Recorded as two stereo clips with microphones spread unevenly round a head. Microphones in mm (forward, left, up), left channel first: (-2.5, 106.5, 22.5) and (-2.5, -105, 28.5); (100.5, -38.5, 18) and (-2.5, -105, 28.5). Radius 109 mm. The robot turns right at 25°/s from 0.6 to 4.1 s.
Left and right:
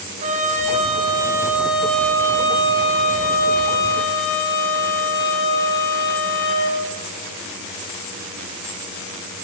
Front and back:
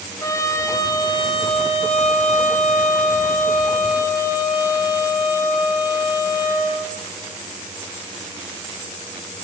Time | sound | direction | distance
0.2 | a trumpet | 30° right | 4.5 m